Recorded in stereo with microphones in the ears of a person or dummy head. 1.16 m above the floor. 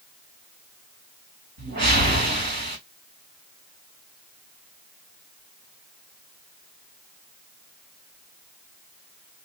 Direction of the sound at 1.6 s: 50° right (ahead or behind).